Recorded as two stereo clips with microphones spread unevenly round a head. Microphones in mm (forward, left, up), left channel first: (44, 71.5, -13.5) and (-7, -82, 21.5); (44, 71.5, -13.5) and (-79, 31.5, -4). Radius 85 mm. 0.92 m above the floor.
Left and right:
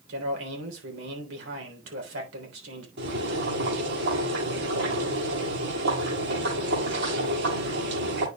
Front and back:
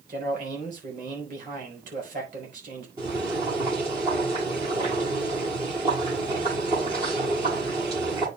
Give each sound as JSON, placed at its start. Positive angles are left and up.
{"t": 0.1, "sound": "a man speaking", "azimuth_deg": -110, "distance_m": 3.5}
{"t": 3.0, "sound": "boiling", "azimuth_deg": -95, "distance_m": 8.0}